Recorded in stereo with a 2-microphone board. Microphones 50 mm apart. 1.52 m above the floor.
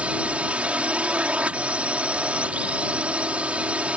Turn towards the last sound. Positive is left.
turn(degrees=-25)  # may be behind; listen again after turning